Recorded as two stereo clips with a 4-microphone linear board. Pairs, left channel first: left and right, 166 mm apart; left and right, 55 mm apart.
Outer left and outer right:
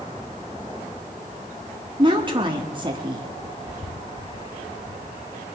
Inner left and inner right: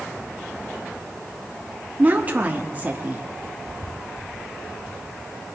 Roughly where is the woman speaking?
Right.